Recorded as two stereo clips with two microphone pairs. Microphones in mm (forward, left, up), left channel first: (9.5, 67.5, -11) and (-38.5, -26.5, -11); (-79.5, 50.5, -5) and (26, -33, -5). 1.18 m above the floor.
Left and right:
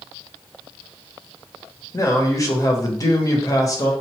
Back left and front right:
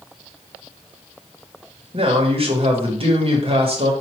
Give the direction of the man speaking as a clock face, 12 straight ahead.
12 o'clock.